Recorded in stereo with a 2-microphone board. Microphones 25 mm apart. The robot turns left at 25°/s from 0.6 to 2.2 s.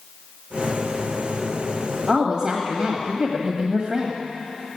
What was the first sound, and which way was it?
A woman speaking, 35° right (ahead or behind).